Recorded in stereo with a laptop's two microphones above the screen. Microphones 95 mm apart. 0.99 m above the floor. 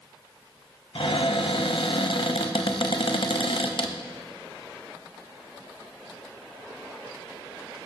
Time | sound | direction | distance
0.9 | a cupboard door | 65° left (ahead or behind) | 0.6 m